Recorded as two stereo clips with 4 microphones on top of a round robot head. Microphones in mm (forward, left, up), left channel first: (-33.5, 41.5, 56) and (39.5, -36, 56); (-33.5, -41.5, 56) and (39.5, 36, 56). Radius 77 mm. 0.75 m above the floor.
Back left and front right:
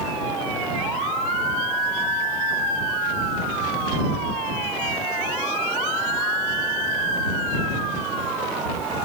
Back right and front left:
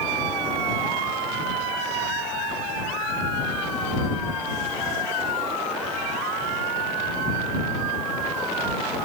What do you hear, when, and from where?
Only background noise.